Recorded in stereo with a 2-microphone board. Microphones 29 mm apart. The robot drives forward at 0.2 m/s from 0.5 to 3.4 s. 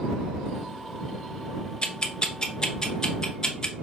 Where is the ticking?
35° left (ahead or behind), 0.6 m; by 3.8 s 25° left (ahead or behind), 0.8 m.